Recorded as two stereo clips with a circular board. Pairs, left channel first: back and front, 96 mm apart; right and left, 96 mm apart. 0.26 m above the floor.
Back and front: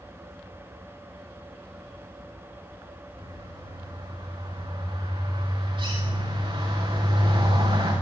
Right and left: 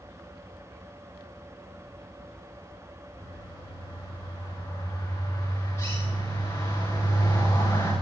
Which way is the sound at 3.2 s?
25° right.